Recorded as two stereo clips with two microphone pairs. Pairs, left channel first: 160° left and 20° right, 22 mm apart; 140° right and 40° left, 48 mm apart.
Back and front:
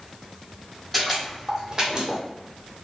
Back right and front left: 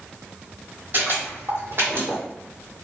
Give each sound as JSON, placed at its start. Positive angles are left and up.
{"t": 0.9, "sound": "footsteps", "azimuth_deg": 65, "distance_m": 1.2}